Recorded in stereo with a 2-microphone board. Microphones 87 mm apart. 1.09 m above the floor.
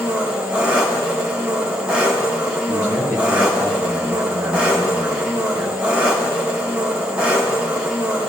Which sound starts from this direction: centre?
An engine running, at 0.0 s.